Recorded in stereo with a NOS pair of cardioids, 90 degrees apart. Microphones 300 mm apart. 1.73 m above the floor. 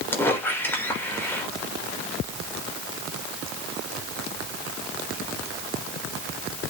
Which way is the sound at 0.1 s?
10° left.